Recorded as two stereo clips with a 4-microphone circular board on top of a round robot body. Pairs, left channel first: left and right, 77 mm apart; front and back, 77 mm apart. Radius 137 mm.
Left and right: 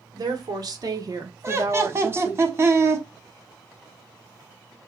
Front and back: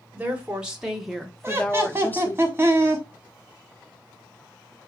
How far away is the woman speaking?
About 1.5 m.